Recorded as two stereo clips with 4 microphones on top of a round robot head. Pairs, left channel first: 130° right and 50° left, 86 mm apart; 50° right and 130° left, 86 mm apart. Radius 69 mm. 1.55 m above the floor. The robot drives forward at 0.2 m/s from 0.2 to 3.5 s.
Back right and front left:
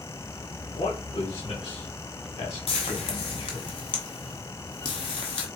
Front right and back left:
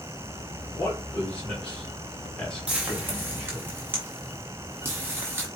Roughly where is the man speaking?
Behind right.